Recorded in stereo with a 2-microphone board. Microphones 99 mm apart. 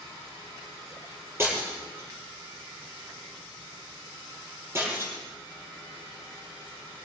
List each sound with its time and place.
1.4 s breaking glass: 25° right (ahead or behind), 7.5 m